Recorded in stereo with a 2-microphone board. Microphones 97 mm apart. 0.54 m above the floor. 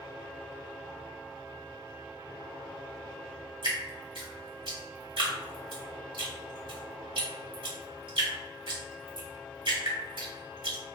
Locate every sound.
3.6 s dripping: 65° right (ahead or behind), 1.7 m